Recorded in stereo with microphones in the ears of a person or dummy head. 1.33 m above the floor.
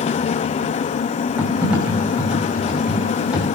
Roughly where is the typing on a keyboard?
Centre.